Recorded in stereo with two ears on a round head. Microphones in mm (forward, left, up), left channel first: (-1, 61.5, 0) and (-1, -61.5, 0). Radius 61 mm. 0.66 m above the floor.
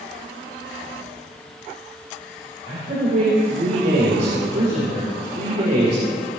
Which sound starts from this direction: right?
A man speaking, at 2.7 s.